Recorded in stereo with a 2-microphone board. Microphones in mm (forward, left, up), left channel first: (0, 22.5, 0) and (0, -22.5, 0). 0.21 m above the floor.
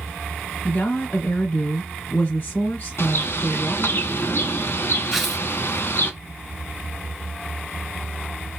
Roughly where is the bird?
Left.